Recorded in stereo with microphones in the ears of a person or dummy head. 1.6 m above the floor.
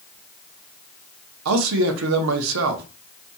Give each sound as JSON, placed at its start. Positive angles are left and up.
{"t": 1.4, "sound": "a man speaking", "side_deg": -80, "distance_m": 0.6}